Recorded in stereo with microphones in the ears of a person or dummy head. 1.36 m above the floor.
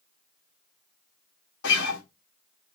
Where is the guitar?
65° left (ahead or behind), 1.5 m.